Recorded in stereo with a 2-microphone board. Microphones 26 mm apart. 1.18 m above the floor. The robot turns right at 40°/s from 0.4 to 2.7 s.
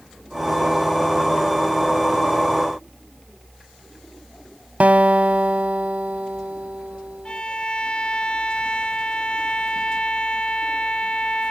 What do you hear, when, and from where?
4.8 s a guitar: 65° right (ahead or behind)
7.2 s a violin: 40° left (ahead or behind)